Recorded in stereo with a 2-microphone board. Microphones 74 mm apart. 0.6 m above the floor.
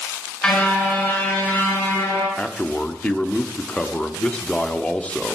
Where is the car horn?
15° left (ahead or behind), 4.5 m; by 2.3 s 30° left (ahead or behind), 6.5 m.